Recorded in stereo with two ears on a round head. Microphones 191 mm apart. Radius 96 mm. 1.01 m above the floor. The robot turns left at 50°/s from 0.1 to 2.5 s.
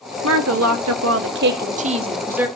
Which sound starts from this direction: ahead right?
A woman speaking, at 0.2 s.